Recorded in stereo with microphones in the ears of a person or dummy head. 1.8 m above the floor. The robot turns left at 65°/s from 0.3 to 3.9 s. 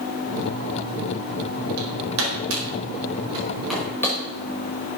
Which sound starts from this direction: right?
Hammering, at 1.8 s.